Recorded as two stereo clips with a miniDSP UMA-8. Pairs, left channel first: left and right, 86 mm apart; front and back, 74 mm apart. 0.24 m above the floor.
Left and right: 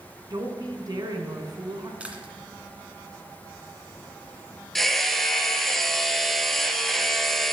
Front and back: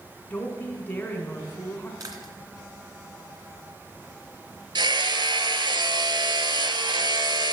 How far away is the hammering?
About 1.1 m.